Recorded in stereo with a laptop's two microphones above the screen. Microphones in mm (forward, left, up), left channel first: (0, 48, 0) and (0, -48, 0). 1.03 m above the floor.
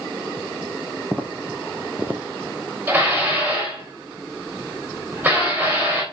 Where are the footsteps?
15° right (ahead or behind), 2 m; by 2.2 s 20° right (ahead or behind), 1.4 m.